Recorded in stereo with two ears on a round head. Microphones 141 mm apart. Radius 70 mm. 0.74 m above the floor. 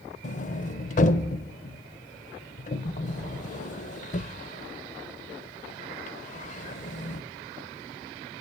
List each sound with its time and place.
0.2 s a sliding door: 45° left (ahead or behind), 0.7 m